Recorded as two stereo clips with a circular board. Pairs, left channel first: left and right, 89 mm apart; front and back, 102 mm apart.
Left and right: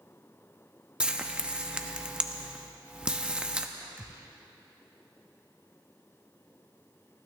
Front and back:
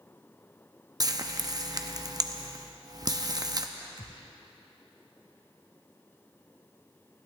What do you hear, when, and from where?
1.0 s frying: 165° right, 0.7 m
4.0 s a gunshot: 25° right, 1.7 m